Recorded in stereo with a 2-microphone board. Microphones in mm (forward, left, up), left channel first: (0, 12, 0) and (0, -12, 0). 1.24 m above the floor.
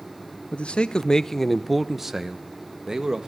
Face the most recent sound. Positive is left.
turn(degrees=-30)  # may be behind; listen again after turning